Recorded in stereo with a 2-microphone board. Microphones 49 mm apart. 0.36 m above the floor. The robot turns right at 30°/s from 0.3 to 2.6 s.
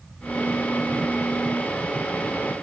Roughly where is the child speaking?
I don't hear a child speaking.